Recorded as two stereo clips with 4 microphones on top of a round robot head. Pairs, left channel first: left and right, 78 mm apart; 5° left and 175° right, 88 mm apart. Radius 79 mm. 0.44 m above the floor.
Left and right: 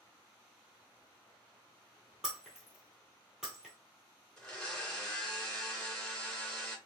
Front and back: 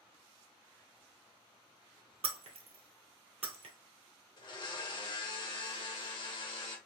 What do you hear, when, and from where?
2.2 s breaking glass: 175° right, 0.9 m
4.4 s a blender: 5° left, 2 m